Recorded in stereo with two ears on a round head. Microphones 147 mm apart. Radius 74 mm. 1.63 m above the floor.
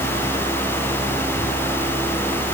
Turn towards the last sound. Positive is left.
No sound to turn to.